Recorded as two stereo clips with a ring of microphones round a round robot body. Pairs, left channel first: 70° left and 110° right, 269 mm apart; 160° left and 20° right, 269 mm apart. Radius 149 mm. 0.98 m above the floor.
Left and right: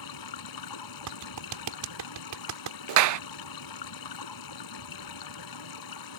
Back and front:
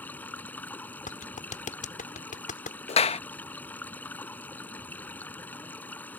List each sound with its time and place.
0.0 s running water: 75° left
1.1 s a clap: 140° right
2.9 s a clap: 135° right